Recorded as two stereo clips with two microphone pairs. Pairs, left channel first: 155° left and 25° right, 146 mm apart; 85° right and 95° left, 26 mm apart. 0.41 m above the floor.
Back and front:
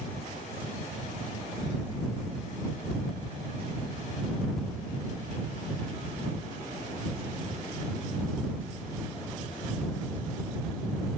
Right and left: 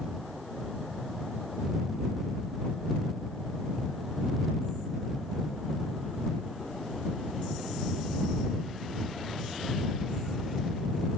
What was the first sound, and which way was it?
Only background noise.